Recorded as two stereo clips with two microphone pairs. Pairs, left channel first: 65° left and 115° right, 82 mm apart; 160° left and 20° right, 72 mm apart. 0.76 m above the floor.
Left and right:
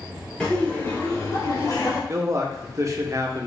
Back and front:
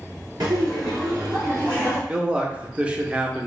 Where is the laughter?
15° right, 2 m; by 2.0 s 40° left, 2.5 m.